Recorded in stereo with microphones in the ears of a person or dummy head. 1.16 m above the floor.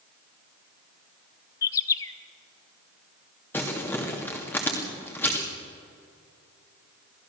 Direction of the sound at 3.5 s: 15° left (ahead or behind).